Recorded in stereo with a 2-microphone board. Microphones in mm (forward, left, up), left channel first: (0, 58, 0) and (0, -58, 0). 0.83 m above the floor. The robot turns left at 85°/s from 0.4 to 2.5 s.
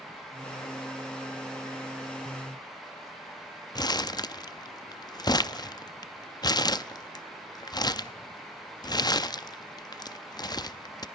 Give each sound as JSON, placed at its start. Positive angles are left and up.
{"t": 3.8, "sound": "crumpling", "side_deg": 35, "distance_m": 0.5}